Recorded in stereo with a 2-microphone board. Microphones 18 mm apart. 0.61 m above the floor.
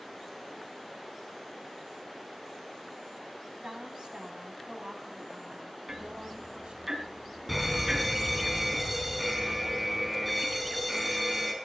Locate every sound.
3.6 s a woman speaking: 70° right (ahead or behind), 4.5 m
5.9 s ticking: 30° right (ahead or behind), 5.5 m
7.5 s an alarm: 5° right (ahead or behind), 4 m